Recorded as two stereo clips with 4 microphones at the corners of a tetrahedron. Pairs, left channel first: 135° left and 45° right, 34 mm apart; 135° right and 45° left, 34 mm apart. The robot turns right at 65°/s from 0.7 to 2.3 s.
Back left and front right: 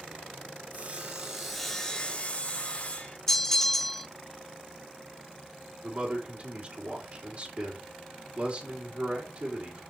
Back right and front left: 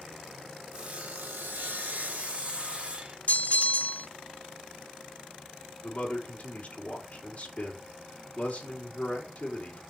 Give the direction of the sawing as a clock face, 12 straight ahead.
12 o'clock.